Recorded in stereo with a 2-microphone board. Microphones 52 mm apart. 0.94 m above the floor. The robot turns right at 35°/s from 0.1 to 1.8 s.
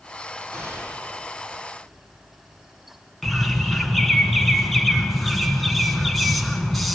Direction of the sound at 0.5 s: 65° right (ahead or behind).